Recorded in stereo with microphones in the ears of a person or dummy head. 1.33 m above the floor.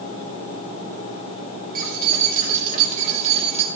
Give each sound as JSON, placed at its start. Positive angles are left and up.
{"t": 1.8, "sound": "keys jangling", "side_deg": -50, "distance_m": 3.5}